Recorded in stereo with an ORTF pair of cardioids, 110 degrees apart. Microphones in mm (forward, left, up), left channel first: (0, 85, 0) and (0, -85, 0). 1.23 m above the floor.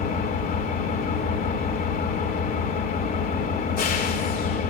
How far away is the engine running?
About 4.5 m.